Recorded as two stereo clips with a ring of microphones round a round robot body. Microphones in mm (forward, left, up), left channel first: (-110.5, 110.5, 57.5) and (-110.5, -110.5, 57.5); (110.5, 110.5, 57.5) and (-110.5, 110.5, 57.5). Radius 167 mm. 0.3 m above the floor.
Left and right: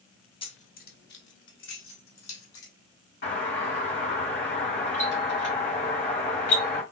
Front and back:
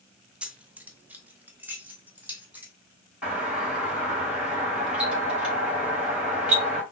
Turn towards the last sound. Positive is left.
turn(degrees=95)